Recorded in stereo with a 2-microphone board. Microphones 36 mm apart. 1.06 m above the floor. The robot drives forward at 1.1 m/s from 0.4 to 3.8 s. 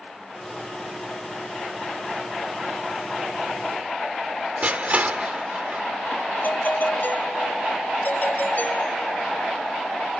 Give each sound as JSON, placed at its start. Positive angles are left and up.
{"t": 4.6, "sound": "crushing", "side_deg": -40}
{"t": 6.4, "sound": "a doorbell", "side_deg": 55}